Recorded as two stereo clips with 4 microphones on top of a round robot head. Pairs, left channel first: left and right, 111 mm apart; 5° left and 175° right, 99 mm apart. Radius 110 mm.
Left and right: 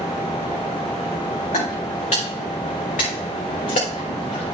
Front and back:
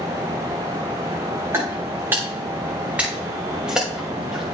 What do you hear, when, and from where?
1.5 s footsteps: 125° left, 4.5 m; by 4.5 s 100° left, 6 m